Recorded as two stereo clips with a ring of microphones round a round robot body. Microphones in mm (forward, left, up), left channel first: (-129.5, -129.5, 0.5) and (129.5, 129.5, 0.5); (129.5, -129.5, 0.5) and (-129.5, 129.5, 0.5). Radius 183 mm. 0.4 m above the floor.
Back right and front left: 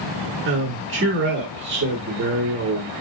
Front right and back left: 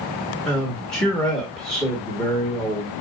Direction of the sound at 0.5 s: 40° left.